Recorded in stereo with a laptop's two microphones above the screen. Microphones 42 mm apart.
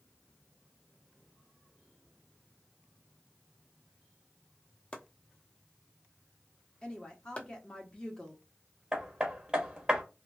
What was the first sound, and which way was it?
Chopping, 25° left (ahead or behind).